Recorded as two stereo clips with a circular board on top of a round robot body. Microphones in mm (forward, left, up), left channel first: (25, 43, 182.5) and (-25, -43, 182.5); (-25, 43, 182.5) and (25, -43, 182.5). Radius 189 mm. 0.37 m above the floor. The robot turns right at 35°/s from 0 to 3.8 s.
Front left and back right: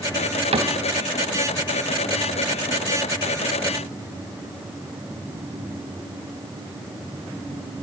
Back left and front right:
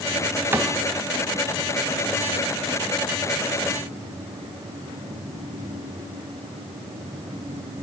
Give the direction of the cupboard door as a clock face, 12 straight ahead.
4 o'clock.